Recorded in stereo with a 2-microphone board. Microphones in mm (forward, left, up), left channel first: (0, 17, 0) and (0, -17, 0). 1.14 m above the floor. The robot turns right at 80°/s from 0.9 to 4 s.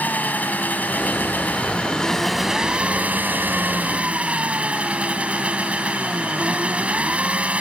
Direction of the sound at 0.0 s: 65° left.